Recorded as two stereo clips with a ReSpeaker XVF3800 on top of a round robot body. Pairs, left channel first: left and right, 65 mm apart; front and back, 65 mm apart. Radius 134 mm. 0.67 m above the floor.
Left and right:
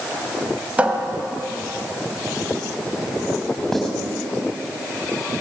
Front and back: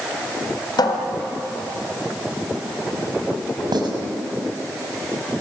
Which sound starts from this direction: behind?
Writing, at 3.7 s.